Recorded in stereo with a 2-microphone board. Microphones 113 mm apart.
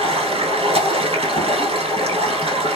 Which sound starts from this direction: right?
Running water, at 0.0 s.